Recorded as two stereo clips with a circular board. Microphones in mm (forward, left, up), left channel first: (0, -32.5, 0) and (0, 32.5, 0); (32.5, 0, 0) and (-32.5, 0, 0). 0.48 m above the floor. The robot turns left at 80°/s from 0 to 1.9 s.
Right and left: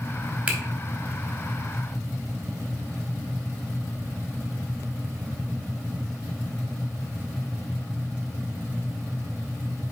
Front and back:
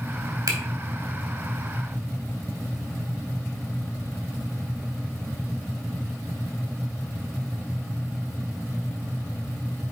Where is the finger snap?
155° left, 2.5 m; by 0.6 s 145° left, 2.5 m.